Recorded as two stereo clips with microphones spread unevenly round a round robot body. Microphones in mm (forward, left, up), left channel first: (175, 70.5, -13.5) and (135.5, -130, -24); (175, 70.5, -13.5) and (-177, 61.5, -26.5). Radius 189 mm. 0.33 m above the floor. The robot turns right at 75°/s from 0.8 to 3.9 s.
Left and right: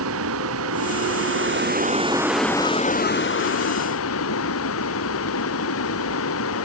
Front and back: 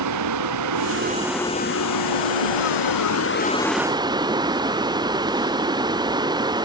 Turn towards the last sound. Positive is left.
turn(degrees=105)